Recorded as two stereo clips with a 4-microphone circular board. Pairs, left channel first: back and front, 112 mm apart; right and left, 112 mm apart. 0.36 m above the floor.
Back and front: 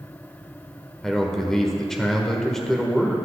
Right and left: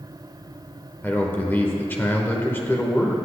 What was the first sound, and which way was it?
A man speaking, 105° right.